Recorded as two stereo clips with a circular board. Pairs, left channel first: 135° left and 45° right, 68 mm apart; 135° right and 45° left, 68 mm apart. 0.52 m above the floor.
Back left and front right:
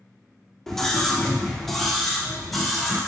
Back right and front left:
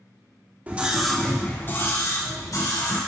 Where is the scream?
60° left, 1.2 m; by 3.0 s 135° right, 2.5 m.